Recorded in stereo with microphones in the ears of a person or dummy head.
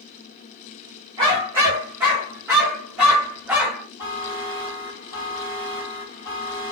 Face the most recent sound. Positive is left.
turn(degrees=-10)  # may be behind; listen again after turning